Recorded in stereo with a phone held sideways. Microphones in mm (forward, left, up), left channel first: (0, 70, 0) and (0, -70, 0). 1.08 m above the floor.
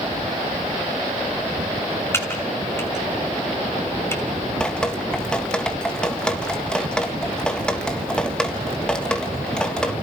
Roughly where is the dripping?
Centre.